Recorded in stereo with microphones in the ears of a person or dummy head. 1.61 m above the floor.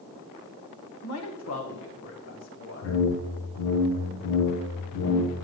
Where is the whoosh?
70° left (ahead or behind), 1.3 m.